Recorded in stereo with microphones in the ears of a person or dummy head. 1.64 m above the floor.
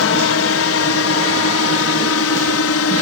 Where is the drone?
65° left (ahead or behind); by 3.0 s 70° left (ahead or behind).